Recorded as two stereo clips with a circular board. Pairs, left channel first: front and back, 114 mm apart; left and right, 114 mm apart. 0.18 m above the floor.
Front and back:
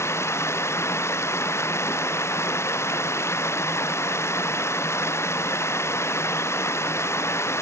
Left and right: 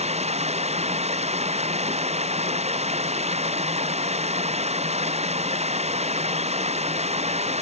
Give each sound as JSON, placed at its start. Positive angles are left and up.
{"t": 0.0, "sound": "running water", "azimuth_deg": -65}